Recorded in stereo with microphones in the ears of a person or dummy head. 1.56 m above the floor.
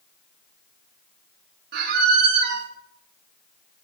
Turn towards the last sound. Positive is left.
turn(degrees=-55)  # may be behind; listen again after turning